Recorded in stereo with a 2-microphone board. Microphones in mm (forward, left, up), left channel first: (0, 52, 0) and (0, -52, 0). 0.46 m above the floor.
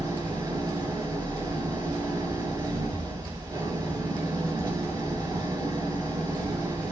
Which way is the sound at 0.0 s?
40° right (ahead or behind).